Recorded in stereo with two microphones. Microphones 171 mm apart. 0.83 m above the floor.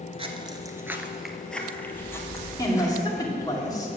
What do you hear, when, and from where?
0.2 s footsteps: 35° right (ahead or behind), 0.9 m; by 3.0 s 20° left (ahead or behind), 2 m
2.6 s a woman speaking: 20° left (ahead or behind), 2 m